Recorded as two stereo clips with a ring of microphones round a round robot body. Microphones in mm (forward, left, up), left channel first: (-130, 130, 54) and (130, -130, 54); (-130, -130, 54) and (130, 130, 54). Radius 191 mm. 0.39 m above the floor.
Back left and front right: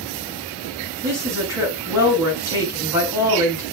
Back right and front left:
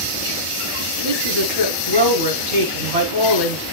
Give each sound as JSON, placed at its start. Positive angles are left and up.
{"t": 1.0, "sound": "a woman speaking", "azimuth_deg": 35, "distance_m": 5.0}